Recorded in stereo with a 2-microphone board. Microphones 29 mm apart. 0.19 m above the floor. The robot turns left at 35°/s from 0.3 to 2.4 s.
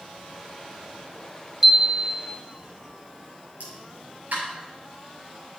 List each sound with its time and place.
1.6 s a chime: 15° right (ahead or behind), 1.1 m; by 2.3 s 5° left (ahead or behind), 1.1 m
3.6 s a pop: 70° right (ahead or behind), 4.5 m